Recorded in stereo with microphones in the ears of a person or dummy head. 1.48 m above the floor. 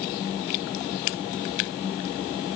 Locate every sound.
Only background noise.